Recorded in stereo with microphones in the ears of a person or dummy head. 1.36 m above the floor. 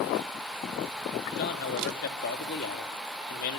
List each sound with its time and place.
1.4 s a man speaking: 55° left (ahead or behind), 2.5 m